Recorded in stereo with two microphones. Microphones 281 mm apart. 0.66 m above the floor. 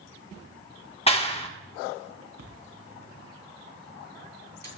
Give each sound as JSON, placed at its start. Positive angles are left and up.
{"t": 1.1, "sound": "a clap", "side_deg": 20, "distance_m": 1.3}
{"t": 2.4, "sound": "a splash", "side_deg": -70, "distance_m": 3.5}